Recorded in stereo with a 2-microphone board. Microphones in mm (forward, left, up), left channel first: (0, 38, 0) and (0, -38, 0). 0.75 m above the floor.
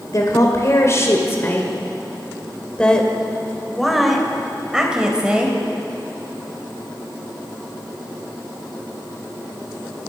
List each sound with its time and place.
0.1 s a woman speaking: 45° left (ahead or behind), 3 m; by 5.6 s 15° right (ahead or behind), 4 m